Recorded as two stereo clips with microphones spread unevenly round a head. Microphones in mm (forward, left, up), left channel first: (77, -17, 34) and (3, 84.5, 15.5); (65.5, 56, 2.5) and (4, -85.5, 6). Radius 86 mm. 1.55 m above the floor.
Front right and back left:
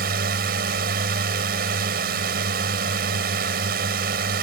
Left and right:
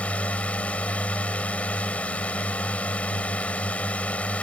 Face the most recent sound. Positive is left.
turn(degrees=150)